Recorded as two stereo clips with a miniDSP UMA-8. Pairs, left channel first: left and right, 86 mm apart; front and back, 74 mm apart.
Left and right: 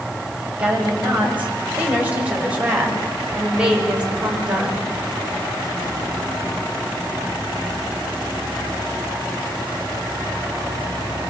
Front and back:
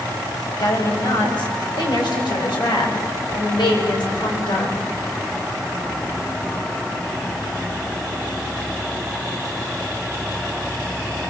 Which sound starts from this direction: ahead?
A woman speaking, at 0.6 s.